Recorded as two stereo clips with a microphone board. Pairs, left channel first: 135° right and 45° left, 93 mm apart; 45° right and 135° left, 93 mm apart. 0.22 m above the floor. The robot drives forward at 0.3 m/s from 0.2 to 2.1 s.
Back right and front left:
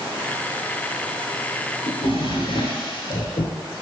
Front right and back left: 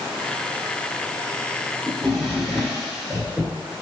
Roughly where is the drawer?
Behind right.